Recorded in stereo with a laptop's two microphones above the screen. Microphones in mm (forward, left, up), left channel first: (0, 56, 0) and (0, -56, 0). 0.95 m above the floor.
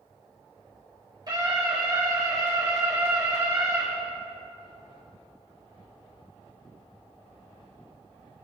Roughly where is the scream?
Right.